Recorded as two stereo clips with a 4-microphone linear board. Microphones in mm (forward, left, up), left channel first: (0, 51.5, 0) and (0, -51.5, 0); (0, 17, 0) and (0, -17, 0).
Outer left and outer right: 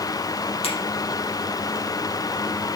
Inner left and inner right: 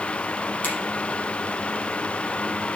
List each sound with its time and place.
0.6 s a finger snap: 80° left, 5 m